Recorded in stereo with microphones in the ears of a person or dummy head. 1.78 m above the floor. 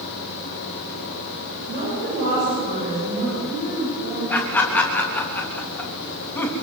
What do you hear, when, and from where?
1.7 s a woman speaking: 55° right (ahead or behind), 9 m; by 4.2 s 50° right (ahead or behind), 11 m
4.3 s laughter: 10° left (ahead or behind), 3.5 m